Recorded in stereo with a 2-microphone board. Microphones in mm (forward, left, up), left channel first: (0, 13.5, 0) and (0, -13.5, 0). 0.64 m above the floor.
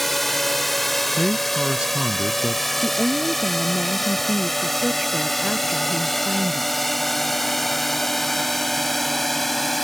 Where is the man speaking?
40° right (ahead or behind).